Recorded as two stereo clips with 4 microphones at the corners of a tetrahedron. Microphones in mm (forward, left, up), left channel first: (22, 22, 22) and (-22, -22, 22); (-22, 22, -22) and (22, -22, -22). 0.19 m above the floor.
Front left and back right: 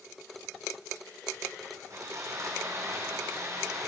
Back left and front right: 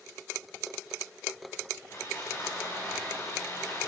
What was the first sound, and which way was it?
Sawing, 175° right.